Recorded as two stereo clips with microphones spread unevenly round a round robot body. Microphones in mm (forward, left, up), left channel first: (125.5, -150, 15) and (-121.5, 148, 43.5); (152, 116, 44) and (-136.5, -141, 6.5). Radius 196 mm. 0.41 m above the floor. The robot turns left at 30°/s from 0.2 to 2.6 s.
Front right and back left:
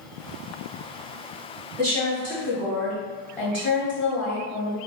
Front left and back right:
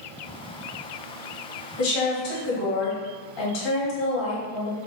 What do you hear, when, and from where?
1.8 s a woman speaking: 55° left, 1.6 m; by 4.8 s 30° left, 1.6 m